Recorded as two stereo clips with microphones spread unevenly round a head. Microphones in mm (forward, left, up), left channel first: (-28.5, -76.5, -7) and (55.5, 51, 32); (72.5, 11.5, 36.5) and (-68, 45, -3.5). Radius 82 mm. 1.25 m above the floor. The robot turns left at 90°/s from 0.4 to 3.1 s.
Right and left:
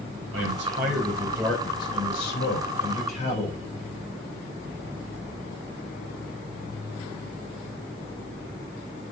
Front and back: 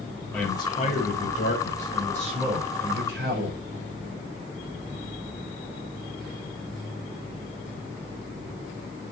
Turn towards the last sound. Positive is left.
turn(degrees=-175)